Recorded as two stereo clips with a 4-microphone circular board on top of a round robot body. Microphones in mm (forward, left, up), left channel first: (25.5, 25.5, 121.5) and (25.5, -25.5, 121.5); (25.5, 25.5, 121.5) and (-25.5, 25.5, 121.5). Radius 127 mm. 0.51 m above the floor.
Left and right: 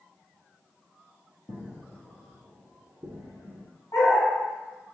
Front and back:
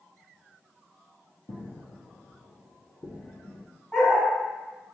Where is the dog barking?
75° left, 1.9 m.